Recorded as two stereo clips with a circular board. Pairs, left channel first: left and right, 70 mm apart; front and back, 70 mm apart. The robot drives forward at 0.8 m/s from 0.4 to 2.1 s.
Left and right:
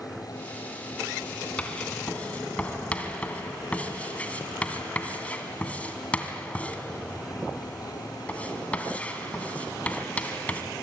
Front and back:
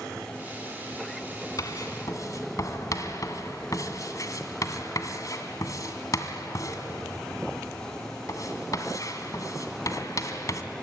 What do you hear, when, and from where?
1.6 s writing: 20° left, 2.5 m; by 10.6 s 25° left, 2.5 m